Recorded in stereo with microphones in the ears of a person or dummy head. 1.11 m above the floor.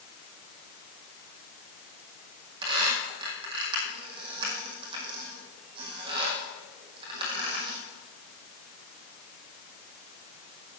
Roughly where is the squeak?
Right.